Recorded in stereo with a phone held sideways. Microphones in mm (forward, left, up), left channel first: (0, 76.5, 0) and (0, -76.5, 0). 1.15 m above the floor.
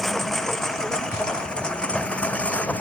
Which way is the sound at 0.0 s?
Centre (ahead or behind).